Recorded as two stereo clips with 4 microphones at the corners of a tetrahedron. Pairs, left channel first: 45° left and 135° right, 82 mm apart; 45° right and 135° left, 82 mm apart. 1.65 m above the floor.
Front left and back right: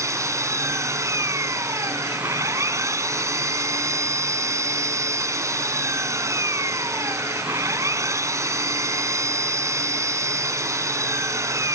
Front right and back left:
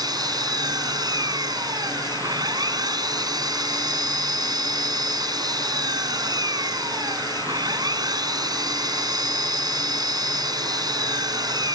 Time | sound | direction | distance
0.0 | an engine running | 170° left | ?